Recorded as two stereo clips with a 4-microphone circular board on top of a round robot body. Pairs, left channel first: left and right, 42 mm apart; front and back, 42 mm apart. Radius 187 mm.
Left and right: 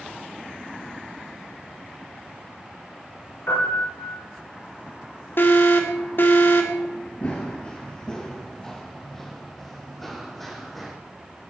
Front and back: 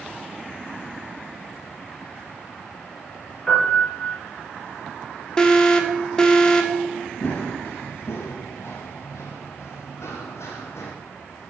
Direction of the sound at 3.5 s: 70° left.